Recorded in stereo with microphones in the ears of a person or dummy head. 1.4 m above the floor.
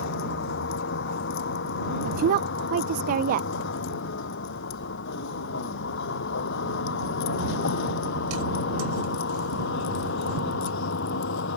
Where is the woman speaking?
45° right (ahead or behind).